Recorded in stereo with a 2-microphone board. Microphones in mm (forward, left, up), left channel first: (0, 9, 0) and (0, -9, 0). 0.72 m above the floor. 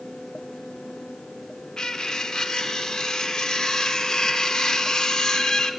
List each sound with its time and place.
1.8 s cutlery clinking: 45° left (ahead or behind), 0.8 m